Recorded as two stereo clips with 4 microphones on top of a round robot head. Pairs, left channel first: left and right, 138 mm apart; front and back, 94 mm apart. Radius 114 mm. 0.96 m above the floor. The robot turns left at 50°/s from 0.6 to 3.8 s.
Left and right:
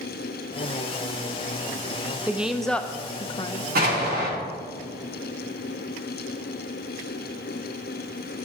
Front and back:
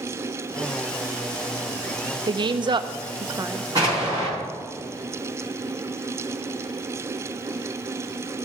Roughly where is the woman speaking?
Behind.